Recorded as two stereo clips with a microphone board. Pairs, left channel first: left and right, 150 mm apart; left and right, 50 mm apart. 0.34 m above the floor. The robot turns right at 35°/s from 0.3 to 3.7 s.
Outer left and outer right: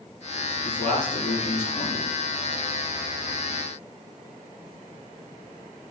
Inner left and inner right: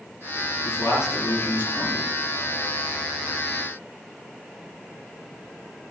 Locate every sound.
0.7 s a man speaking: 105° left, 6.5 m; by 2.1 s 155° left, 6.5 m